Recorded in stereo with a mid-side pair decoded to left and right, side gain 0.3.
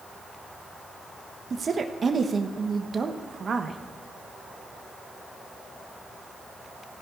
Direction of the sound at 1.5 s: 55° right.